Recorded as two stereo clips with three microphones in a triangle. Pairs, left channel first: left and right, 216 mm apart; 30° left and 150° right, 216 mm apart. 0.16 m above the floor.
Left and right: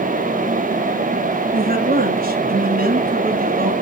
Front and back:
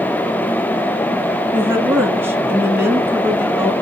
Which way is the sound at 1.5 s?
75° right.